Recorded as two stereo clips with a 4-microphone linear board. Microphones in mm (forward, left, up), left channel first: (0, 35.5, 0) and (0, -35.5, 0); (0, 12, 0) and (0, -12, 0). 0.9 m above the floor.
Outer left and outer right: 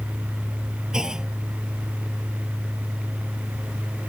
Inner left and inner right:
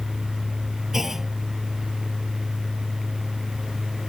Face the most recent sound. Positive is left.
turn(degrees=-10)  # may be behind; listen again after turning